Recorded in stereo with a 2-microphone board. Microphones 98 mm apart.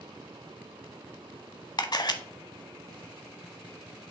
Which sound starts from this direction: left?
A camera shutter, at 1.8 s.